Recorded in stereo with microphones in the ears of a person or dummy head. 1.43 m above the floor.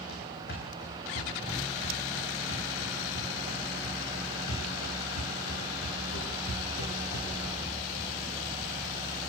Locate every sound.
0.1 s running footsteps: 60° left (ahead or behind), 5.5 m; by 7.7 s 80° left, 8.5 m